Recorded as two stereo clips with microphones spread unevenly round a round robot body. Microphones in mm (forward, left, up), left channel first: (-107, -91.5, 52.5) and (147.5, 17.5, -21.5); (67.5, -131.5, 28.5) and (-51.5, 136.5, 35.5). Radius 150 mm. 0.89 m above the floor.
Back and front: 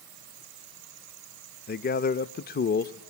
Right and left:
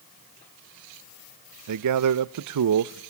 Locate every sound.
1.7 s a man speaking: 135° left, 0.6 m